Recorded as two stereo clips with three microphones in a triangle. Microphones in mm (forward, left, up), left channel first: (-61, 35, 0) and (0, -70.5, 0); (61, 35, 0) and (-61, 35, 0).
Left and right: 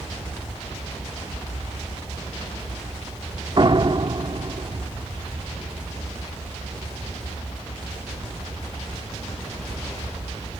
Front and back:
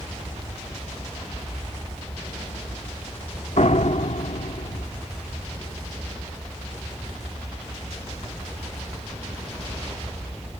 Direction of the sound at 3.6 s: 15° right.